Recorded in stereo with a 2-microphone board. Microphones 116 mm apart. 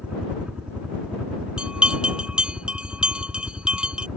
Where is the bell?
10° right (ahead or behind).